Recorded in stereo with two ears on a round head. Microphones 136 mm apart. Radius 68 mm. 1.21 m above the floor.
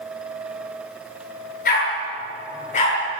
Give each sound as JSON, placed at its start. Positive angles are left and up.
{"t": 1.6, "sound": "a dog barking", "side_deg": 60, "distance_m": 9.0}